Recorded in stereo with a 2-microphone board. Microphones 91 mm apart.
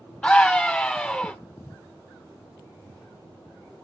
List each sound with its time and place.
0.2 s a scream: 10° left (ahead or behind), 0.8 m